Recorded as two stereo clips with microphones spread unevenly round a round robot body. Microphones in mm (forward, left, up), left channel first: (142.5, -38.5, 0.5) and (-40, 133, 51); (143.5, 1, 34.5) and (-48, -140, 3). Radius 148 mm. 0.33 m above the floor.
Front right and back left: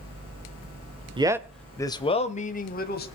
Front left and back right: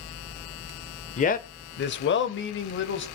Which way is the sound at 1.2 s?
65° left.